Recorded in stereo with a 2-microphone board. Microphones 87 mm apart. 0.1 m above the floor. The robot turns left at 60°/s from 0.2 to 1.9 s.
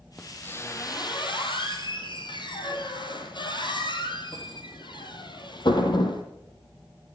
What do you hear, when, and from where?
0.2 s a squeak: 5° left (ahead or behind), 3 m; by 6.2 s 60° left (ahead or behind), 3 m